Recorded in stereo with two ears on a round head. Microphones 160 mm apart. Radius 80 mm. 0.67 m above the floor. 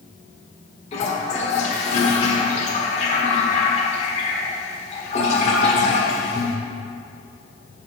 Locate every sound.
0.9 s a toilet flushing: 40° left (ahead or behind), 1.4 m